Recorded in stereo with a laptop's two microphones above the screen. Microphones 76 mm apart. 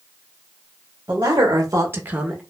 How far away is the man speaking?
About 0.9 m.